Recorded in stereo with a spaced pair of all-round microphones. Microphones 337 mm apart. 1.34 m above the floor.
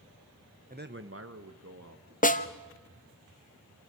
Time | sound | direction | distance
0.7 | a man speaking | 25° right (ahead or behind) | 1.0 m
2.2 | a snare drum | 25° left (ahead or behind) | 0.9 m